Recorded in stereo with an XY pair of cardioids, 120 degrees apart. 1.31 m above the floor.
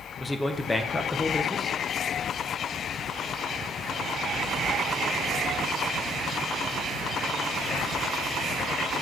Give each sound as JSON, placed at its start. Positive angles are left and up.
{"t": 0.2, "sound": "a man speaking", "azimuth_deg": 20, "distance_m": 0.9}